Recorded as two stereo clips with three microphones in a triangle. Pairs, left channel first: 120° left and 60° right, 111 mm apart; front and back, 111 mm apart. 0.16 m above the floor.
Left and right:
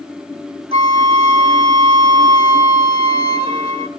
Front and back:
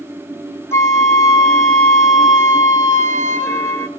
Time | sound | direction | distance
0.7 | a flute | 65° right | 0.9 m